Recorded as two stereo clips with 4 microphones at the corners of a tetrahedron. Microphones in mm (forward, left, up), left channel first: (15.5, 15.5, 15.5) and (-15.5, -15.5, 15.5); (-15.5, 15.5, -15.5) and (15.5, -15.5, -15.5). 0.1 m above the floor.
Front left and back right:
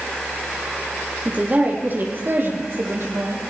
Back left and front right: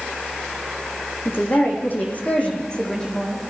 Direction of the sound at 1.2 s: 170° left.